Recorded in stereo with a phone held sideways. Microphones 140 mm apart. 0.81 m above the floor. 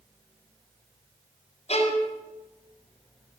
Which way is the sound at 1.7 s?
55° left (ahead or behind).